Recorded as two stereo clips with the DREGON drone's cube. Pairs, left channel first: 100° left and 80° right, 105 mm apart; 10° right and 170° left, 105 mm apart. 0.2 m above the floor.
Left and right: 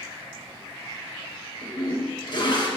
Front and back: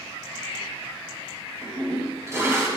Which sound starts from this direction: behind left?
A toilet flushing, at 1.6 s.